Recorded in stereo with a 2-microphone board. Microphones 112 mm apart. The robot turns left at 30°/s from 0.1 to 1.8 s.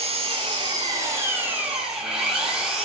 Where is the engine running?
120° right, 4 m; by 2.9 s 175° right, 4 m.